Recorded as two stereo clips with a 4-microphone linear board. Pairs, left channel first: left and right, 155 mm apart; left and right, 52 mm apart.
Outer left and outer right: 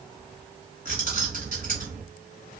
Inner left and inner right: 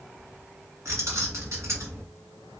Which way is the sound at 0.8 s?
65° right (ahead or behind).